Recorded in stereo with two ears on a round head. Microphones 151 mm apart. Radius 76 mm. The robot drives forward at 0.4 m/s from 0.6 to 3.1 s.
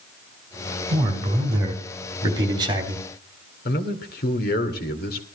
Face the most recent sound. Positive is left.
turn(degrees=60)  # may be behind; listen again after turning